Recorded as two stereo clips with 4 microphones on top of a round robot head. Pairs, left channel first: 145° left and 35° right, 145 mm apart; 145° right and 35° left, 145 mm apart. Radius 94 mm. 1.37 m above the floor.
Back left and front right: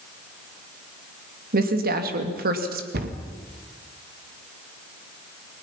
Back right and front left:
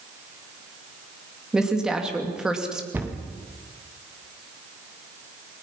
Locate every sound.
1.5 s a woman speaking: 50° right, 2.5 m
2.9 s a cupboard door: 45° right, 2 m